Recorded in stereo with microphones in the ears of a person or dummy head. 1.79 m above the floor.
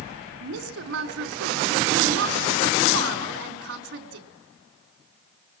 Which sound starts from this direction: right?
A woman speaking, at 0.4 s.